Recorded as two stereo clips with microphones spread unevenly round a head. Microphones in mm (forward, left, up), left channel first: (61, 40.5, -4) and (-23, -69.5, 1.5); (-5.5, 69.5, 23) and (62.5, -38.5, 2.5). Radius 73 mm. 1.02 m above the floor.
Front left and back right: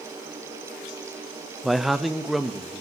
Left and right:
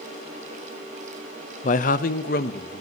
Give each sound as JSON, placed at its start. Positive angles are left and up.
{"t": 1.6, "sound": "a man speaking", "azimuth_deg": 140, "distance_m": 0.6}